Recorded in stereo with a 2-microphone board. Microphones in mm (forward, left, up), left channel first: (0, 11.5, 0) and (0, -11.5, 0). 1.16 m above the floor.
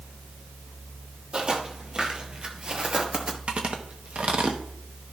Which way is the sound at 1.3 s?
45° right (ahead or behind).